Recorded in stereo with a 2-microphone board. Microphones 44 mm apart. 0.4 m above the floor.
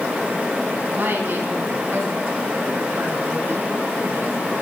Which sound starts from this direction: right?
A woman speaking, at 0.9 s.